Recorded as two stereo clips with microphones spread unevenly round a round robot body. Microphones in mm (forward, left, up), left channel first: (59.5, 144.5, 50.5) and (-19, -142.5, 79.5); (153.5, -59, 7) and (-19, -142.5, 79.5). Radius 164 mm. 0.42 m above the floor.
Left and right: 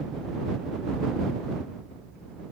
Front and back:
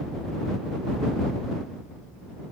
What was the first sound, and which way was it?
Only background noise.